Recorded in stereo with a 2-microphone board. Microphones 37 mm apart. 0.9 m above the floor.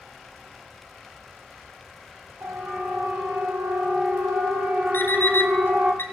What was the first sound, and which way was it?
A siren, 70° right (ahead or behind).